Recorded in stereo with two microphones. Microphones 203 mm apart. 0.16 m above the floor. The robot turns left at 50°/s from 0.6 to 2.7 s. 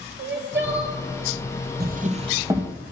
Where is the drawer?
130° right, 1.3 m; by 2.7 s 175° right, 1.3 m.